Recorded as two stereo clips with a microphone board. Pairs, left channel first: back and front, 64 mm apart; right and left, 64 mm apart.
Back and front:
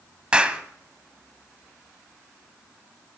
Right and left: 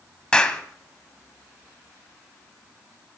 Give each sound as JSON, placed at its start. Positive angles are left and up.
{"t": 0.3, "sound": "a clap", "azimuth_deg": -40, "distance_m": 1.3}